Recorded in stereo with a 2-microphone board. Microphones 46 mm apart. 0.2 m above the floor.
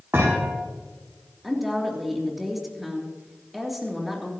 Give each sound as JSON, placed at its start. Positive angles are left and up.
{"t": 0.1, "sound": "a thud", "side_deg": -65, "distance_m": 6.5}
{"t": 1.4, "sound": "a woman speaking", "side_deg": -5, "distance_m": 3.5}